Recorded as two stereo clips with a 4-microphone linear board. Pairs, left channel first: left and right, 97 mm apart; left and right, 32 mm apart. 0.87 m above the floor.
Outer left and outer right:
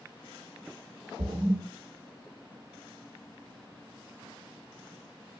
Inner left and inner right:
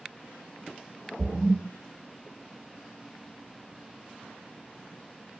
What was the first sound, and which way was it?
A splash, 75° right (ahead or behind).